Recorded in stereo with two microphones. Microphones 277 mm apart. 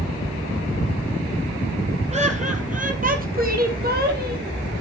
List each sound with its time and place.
2.1 s laughter: 25° right (ahead or behind), 2.5 m; by 4.5 s 35° right (ahead or behind), 4.5 m